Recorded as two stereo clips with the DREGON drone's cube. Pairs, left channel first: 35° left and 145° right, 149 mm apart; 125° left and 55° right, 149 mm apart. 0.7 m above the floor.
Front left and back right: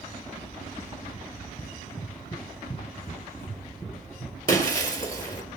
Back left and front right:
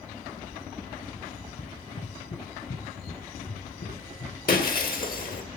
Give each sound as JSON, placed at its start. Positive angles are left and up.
{"t": 1.6, "sound": "running footsteps", "azimuth_deg": 105, "distance_m": 4.5}
{"t": 4.5, "sound": "breaking glass", "azimuth_deg": 100, "distance_m": 2.0}